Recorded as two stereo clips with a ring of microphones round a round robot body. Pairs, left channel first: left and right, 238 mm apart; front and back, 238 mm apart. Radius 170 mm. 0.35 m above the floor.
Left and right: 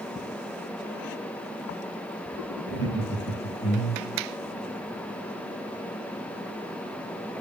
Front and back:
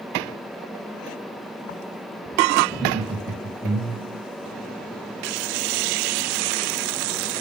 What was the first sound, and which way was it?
Laughter, 90° left.